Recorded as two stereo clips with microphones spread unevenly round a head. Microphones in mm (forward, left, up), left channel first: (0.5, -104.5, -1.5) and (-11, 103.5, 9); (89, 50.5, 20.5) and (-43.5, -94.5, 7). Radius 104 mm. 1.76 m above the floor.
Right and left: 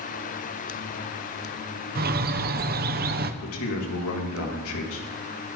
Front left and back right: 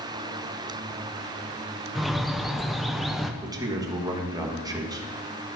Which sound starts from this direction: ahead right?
A man speaking, at 3.4 s.